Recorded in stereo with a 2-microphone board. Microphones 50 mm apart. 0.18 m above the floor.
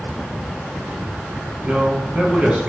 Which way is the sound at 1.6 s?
25° right (ahead or behind).